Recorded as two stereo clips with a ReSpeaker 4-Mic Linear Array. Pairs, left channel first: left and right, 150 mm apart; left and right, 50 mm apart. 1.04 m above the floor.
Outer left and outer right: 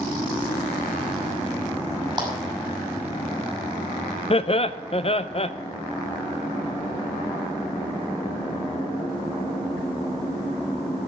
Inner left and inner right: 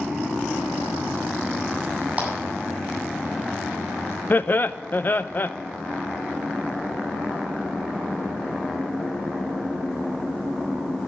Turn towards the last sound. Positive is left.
turn(degrees=40)  # may be behind; listen again after turning